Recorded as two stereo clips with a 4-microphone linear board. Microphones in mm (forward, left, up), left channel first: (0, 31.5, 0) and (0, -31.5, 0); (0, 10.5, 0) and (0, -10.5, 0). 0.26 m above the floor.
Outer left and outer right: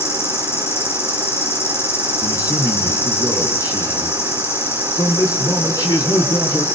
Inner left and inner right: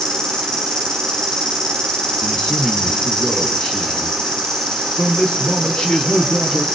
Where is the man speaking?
75° left (ahead or behind), 4 m.